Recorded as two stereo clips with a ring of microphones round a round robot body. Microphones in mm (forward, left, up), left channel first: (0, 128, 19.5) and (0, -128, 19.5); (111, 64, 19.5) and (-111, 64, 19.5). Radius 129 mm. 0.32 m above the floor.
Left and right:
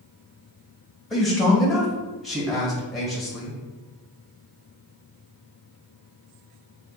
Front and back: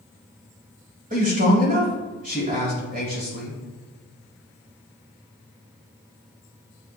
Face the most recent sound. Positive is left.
turn(degrees=180)